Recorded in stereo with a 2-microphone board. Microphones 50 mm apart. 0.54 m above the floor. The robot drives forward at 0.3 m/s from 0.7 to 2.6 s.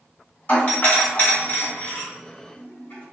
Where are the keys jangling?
I don't hear keys jangling.